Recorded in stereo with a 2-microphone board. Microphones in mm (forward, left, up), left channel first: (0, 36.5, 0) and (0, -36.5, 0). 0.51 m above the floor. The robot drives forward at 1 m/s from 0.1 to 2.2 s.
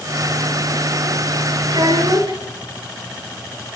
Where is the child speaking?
80° right, 8 m; by 2.4 s 75° right (ahead or behind), 8 m.